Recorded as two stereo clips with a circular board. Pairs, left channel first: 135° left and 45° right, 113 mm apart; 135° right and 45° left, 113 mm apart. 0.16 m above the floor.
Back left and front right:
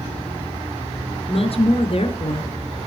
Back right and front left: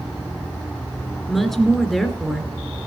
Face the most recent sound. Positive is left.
turn(degrees=135)